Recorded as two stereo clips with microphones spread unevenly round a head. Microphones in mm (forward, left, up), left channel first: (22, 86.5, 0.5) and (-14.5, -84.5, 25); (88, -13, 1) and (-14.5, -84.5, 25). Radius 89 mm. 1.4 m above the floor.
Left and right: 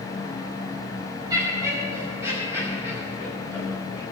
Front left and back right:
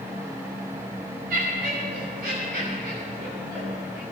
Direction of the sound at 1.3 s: 170° right.